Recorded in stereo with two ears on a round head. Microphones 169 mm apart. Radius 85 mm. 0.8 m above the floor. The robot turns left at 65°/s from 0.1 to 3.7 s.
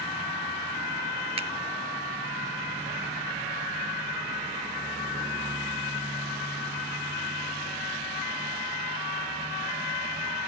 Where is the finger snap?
30° right (ahead or behind); by 1.5 s 35° right (ahead or behind).